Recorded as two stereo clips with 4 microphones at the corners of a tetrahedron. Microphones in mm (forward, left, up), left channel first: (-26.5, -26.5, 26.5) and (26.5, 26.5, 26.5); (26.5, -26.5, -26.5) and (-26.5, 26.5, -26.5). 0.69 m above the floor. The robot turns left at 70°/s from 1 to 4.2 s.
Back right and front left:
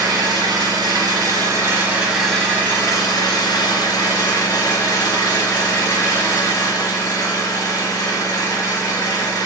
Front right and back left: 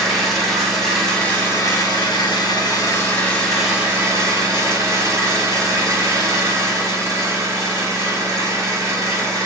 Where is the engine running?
45° left, 1.0 m; by 9.5 s straight behind, 1.0 m.